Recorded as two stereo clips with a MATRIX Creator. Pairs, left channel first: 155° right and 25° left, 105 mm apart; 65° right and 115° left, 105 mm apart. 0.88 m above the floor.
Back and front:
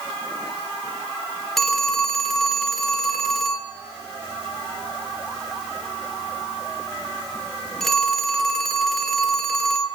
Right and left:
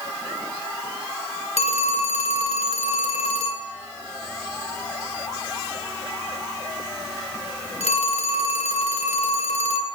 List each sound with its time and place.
1.6 s a phone ringing: 70° right, 1.2 m